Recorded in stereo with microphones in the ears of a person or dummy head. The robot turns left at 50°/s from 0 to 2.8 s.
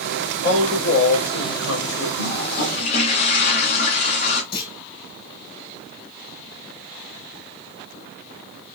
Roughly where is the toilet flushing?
Left.